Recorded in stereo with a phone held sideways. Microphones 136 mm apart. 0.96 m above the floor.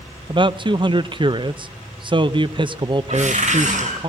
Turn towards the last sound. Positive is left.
turn(degrees=-65)  # may be behind; listen again after turning